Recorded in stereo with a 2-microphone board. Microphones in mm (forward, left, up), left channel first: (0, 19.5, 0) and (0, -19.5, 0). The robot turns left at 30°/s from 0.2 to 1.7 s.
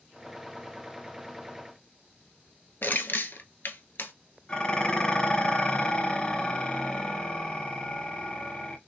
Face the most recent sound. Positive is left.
turn(degrees=25)  # may be behind; listen again after turning